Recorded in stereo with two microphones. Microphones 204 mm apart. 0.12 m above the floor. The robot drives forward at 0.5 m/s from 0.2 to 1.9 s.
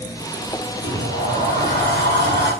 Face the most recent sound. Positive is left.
turn(degrees=60)  # may be behind; listen again after turning